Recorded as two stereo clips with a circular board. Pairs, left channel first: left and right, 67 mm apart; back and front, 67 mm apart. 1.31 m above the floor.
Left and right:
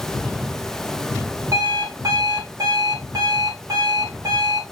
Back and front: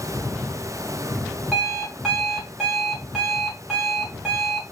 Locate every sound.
1.5 s an alarm clock: 85° right, 1.7 m